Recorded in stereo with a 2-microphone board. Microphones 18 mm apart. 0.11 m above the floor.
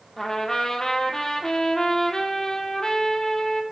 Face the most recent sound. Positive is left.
turn(degrees=35)  # may be behind; listen again after turning